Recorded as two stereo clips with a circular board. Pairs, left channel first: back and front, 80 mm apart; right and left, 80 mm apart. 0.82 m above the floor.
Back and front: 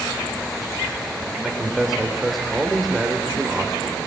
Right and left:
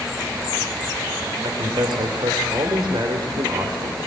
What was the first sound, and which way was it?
A man speaking, 85° left.